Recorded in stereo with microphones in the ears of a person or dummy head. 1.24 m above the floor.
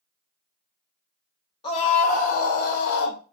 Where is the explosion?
No explosion in this recording.